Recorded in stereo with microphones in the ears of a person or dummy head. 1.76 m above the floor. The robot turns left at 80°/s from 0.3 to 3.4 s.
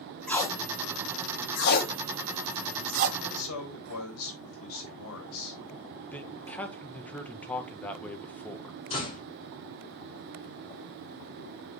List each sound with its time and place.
0.3 s tape being pulled: 5° left (ahead or behind), 1.9 m; by 3.1 s 50° right (ahead or behind), 1.9 m
3.2 s a man speaking: 70° left (ahead or behind), 3 m; by 5.6 s 80° left, 3 m
6.1 s a man speaking: 10° left (ahead or behind), 1.6 m
8.9 s a door slam: 35° left (ahead or behind), 4.5 m